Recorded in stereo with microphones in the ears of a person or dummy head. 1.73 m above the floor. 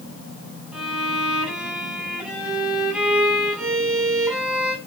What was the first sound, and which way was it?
A violin, centre (ahead or behind).